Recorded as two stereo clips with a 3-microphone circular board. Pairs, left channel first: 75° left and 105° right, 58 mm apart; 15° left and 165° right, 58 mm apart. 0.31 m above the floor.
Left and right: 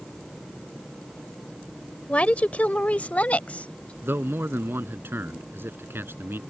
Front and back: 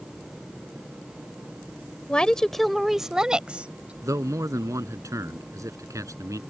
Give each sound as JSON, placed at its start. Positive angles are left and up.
{"t": 2.1, "sound": "a woman speaking", "azimuth_deg": 55}
{"t": 4.0, "sound": "a man speaking", "azimuth_deg": -150}